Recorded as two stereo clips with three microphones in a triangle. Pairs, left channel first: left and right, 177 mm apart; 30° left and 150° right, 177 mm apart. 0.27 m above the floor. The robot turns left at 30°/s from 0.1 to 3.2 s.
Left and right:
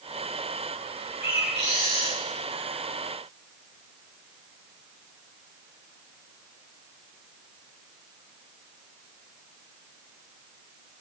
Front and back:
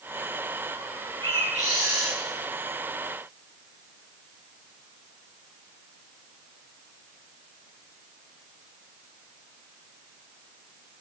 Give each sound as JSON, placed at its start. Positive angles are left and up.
{"t": 1.2, "sound": "a bird", "azimuth_deg": -85, "distance_m": 7.5}